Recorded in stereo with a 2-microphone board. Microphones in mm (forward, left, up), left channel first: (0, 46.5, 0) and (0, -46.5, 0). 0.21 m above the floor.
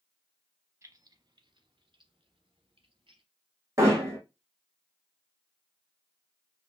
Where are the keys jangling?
30° right (ahead or behind), 0.8 m; by 3.2 s 65° right (ahead or behind), 2.5 m.